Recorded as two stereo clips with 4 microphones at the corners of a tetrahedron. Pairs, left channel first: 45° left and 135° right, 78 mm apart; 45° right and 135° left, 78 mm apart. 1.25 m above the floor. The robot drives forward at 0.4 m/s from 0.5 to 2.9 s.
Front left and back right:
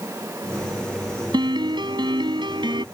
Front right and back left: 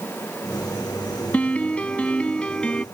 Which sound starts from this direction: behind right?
A piano, at 1.3 s.